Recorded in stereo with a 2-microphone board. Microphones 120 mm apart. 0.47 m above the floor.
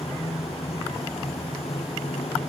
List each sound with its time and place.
0.0 s running water: 55° left (ahead or behind)